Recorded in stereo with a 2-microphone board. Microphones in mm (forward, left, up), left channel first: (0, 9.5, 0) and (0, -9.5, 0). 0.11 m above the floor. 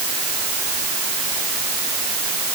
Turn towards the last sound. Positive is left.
No sound to turn to.